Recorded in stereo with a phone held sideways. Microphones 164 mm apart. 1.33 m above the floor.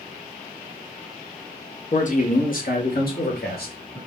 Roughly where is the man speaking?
Left.